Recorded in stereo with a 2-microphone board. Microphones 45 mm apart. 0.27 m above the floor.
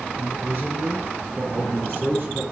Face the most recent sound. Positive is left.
turn(degrees=-45)  # may be behind; listen again after turning